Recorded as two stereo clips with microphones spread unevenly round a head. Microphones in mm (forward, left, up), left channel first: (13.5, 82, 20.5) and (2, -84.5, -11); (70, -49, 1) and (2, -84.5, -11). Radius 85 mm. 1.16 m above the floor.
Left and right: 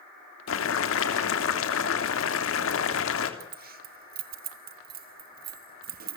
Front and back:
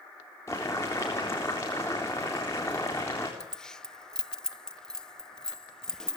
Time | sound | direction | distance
0.5 | boiling | 105° left | 3 m
3.4 | keys jangling | 55° right | 1.1 m